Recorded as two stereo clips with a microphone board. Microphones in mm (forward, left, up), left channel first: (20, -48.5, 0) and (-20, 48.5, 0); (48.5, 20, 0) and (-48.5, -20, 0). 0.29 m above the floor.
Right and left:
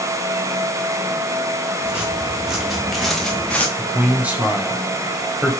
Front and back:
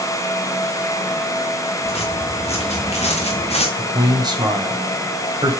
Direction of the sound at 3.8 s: 175° right.